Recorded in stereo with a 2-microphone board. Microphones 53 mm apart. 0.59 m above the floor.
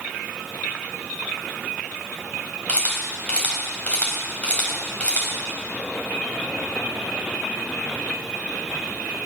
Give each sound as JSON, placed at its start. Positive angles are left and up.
{"t": 2.7, "sound": "a camera shutter", "side_deg": 25, "distance_m": 4.0}